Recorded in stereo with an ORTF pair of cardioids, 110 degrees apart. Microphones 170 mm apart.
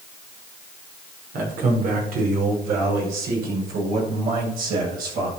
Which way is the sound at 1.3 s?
60° right.